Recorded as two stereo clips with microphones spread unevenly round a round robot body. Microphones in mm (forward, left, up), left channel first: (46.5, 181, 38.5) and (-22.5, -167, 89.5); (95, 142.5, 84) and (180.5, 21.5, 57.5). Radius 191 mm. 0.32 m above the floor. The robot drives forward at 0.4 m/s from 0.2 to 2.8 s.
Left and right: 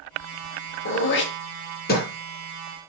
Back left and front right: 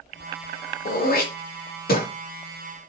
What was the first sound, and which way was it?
Throat clearing, 125° left.